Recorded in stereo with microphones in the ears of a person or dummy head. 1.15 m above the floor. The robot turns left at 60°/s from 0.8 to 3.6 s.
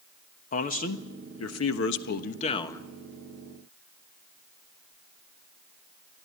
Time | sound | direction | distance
0.5 | a man speaking | 135° left | 1.3 m